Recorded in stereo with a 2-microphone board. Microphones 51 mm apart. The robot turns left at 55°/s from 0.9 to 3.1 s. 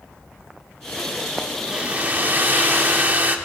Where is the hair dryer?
35° right, 0.7 m; by 3.4 s 115° right, 0.7 m.